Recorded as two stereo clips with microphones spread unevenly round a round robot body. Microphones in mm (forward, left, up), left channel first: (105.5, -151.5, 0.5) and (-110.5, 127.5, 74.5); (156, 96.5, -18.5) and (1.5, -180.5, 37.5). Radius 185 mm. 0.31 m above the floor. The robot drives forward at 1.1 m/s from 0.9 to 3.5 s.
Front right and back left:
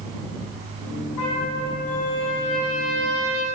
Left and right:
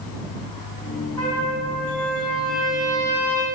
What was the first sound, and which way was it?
A trumpet, 15° right.